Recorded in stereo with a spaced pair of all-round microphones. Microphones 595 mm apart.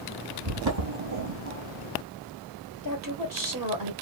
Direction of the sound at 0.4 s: 40° right (ahead or behind).